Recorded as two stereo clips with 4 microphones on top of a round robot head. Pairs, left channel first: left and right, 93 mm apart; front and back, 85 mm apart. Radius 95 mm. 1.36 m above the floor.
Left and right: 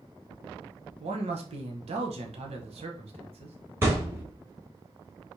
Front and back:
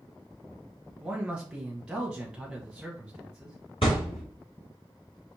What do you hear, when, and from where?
1.0 s a man speaking: 95° right, 1.0 m
3.8 s a thud: 35° right, 1.3 m